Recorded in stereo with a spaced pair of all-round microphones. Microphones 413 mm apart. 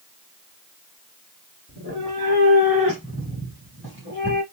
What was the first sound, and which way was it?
A cat meowing, 40° right (ahead or behind).